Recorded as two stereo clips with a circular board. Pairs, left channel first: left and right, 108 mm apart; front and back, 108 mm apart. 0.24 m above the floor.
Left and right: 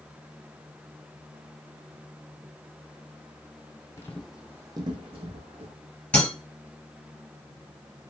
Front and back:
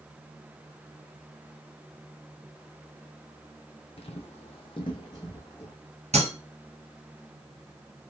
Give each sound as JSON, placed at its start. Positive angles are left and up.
{"t": 4.0, "sound": "footsteps", "azimuth_deg": 25, "distance_m": 0.5}
{"t": 6.1, "sound": "breaking glass", "azimuth_deg": 170, "distance_m": 2.0}